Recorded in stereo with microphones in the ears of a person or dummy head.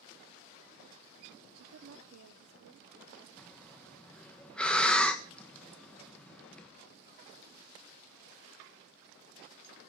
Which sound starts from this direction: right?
A woman speaking, at 1.6 s.